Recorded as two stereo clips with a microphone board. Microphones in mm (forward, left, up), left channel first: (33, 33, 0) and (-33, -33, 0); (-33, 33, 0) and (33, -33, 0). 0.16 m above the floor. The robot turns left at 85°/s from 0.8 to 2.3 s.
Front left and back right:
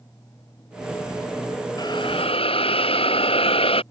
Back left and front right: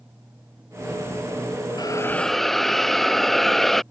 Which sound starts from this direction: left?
A hiss, at 1.8 s.